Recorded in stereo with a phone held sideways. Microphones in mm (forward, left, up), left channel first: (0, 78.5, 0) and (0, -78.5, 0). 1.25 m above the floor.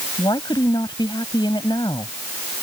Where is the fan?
No fan in this recording.